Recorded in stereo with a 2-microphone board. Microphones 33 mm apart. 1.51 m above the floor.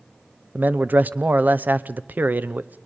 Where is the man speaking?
60° right (ahead or behind), 0.7 m.